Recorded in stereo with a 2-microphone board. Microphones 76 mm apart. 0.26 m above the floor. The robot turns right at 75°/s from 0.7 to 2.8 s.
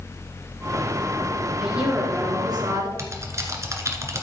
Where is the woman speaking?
175° right, 3.5 m; by 2.9 s 85° right, 3.5 m.